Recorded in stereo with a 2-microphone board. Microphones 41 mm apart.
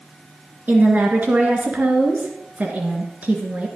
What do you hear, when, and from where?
0.7 s a woman speaking: 45° right (ahead or behind), 2.5 m